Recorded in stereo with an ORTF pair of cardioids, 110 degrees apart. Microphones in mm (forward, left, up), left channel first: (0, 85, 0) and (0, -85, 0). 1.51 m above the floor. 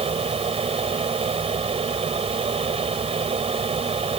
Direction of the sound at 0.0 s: 35° right.